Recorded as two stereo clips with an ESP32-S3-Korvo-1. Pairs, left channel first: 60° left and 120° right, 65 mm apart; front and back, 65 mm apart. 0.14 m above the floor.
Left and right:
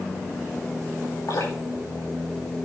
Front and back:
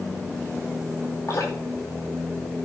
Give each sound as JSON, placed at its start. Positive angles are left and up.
{"t": 1.3, "sound": "dripping", "azimuth_deg": 45, "distance_m": 10.0}